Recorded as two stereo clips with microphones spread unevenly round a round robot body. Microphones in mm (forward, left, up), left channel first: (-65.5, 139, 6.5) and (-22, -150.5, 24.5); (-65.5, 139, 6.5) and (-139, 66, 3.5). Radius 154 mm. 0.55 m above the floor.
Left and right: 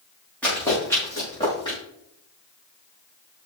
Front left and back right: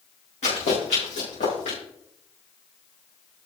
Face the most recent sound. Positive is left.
turn(degrees=20)